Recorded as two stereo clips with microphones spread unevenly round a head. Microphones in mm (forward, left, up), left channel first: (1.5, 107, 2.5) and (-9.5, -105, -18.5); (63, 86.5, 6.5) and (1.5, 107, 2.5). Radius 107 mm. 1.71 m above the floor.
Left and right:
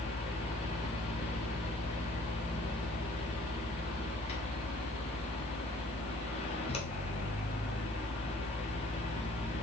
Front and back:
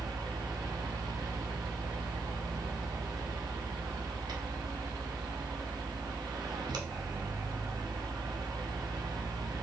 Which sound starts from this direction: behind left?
A fan, at 0.0 s.